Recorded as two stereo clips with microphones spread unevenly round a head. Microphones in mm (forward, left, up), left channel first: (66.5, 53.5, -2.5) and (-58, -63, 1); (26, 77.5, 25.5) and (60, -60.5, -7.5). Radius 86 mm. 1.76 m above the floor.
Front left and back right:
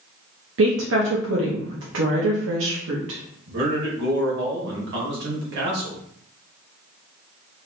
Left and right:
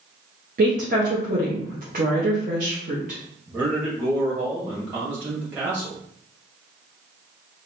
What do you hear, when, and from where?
0.6 s a woman speaking: 125° right, 0.9 m
3.5 s a man speaking: 160° right, 1.7 m